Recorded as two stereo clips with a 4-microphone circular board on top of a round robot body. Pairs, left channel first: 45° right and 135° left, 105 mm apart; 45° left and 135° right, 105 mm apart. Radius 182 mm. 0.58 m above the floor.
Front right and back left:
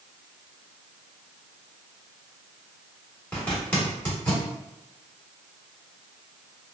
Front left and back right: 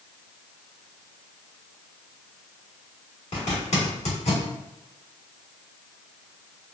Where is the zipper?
30° left, 1.6 m.